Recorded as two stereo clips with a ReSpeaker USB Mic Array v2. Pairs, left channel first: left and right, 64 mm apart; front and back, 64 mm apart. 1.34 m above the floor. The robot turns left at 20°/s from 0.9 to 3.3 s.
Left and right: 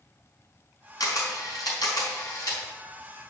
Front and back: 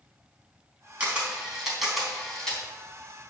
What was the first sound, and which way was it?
A camera shutter, 110° left.